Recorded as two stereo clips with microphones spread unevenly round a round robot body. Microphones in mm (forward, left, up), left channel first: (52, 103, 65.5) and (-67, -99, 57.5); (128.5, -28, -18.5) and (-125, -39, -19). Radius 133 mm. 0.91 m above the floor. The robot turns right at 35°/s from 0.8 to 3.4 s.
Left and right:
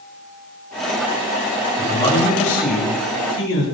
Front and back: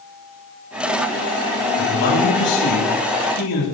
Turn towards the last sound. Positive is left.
turn(degrees=35)